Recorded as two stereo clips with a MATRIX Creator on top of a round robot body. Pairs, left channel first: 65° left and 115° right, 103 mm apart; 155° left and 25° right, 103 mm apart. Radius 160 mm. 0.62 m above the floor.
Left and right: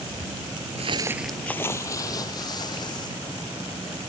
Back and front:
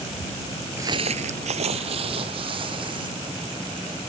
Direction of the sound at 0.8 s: 90° right.